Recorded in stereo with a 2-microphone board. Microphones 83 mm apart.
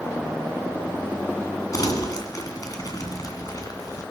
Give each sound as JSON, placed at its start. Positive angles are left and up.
{"t": 1.7, "sound": "crumpling", "side_deg": 50, "distance_m": 2.0}